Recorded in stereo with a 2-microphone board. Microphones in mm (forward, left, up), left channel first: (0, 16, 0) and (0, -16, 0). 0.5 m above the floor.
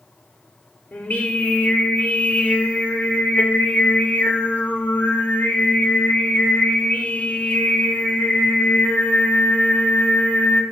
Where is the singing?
55° left (ahead or behind), 0.8 m.